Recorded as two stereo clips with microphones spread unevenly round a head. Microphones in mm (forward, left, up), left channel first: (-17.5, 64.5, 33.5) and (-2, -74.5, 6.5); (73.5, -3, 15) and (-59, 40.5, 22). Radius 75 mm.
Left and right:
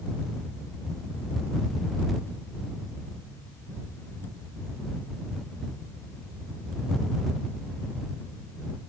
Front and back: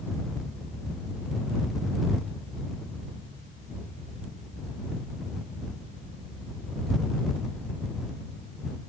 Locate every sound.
Only background noise.